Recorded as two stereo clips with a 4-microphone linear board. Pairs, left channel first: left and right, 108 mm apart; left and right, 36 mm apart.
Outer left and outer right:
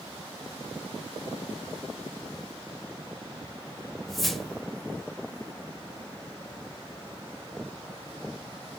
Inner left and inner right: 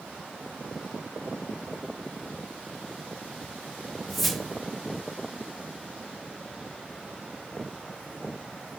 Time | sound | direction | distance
4.1 | a whoosh | 5° left (ahead or behind) | 0.6 m